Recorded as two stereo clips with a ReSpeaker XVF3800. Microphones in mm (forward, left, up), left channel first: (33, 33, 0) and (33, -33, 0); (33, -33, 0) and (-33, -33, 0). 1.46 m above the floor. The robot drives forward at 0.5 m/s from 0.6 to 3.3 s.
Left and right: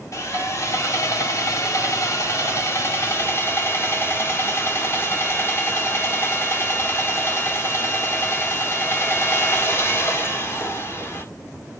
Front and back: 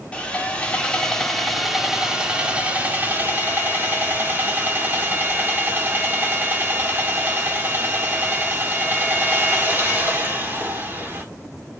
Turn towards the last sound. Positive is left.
turn(degrees=130)